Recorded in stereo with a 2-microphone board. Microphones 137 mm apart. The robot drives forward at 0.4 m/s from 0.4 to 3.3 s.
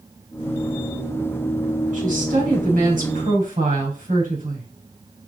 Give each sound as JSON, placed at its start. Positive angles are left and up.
{"t": 1.9, "sound": "a woman speaking", "side_deg": -70, "distance_m": 4.5}